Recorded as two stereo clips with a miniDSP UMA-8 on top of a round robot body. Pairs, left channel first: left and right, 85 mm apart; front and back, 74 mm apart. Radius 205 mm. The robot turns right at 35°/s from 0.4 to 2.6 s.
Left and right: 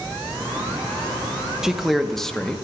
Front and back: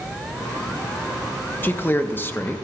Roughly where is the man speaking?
Ahead.